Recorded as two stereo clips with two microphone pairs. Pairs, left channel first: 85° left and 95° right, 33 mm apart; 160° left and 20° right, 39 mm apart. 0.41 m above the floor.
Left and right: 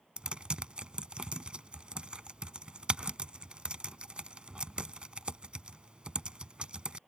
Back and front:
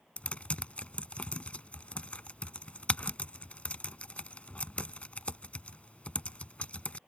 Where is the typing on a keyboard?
150° right.